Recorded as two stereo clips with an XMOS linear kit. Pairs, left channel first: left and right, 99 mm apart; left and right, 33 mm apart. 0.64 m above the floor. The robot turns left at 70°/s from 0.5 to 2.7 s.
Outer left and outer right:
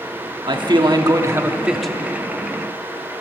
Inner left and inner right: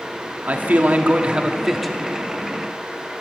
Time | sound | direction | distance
0.5 | a man speaking | 85° right | 1.1 m